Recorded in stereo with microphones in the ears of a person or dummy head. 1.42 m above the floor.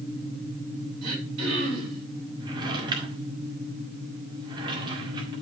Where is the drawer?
30° right (ahead or behind), 1.9 m.